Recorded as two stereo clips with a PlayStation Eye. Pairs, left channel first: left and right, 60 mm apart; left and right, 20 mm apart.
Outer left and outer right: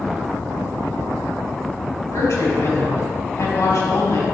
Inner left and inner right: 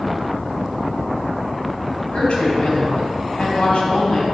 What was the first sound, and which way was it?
A woman speaking, 65° left (ahead or behind).